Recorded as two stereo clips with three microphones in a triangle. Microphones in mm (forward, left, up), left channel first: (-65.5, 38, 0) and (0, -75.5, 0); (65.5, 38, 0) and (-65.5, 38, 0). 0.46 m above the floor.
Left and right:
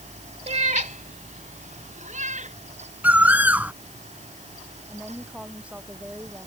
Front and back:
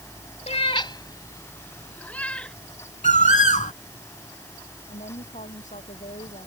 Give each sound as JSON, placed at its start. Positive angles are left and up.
{"t": 0.5, "sound": "a cat meowing", "azimuth_deg": -30}
{"t": 3.0, "sound": "a bird", "azimuth_deg": 15}
{"t": 4.9, "sound": "a woman speaking", "azimuth_deg": 20}